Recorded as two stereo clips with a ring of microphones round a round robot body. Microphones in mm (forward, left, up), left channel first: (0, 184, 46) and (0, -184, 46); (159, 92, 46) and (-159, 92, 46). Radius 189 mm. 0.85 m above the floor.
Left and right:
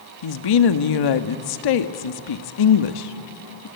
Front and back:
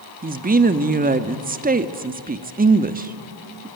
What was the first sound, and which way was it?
A woman speaking, 115° left.